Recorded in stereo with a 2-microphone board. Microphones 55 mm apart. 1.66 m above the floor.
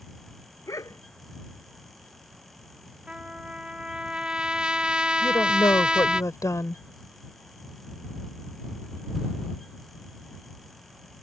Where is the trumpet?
15° right (ahead or behind).